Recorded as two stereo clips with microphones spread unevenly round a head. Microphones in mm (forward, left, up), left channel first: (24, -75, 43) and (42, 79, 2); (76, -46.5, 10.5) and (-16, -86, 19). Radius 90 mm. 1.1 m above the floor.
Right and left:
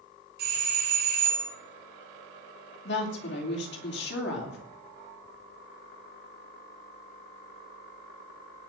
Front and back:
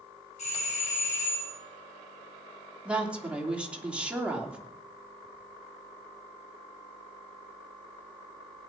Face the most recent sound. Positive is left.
turn(degrees=-80)